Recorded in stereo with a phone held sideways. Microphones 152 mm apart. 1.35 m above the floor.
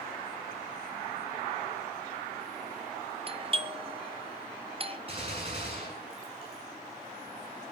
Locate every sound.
3.3 s a doorbell: 35° right (ahead or behind), 1.0 m
5.1 s a gunshot: 35° right (ahead or behind), 7 m